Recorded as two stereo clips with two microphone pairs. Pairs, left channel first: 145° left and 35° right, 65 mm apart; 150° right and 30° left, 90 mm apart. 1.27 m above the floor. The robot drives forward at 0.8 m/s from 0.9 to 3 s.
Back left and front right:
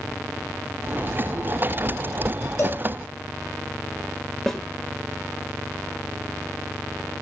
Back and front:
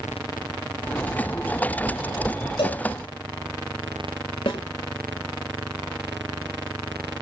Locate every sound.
2.6 s a cowbell: 175° right, 6 m
4.5 s a snare drum: 135° right, 2.5 m